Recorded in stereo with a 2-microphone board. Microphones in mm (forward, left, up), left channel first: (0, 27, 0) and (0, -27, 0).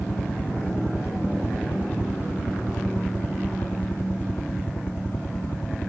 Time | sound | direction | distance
0.0 | a helicopter | 45° left (ahead or behind) | ?